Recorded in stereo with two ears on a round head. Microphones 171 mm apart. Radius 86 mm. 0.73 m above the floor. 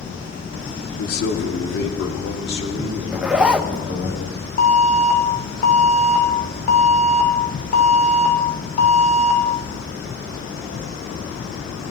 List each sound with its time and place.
1.0 s a man speaking: 50° left (ahead or behind), 1.7 m; by 4.1 s 65° left (ahead or behind), 4.5 m
3.1 s a zipper: 5° right (ahead or behind), 0.5 m
4.6 s an alarm: 45° left (ahead or behind), 2.5 m